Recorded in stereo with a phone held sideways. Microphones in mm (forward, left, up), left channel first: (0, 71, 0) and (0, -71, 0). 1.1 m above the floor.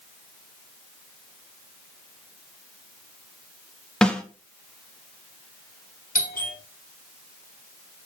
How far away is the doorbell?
About 5 m.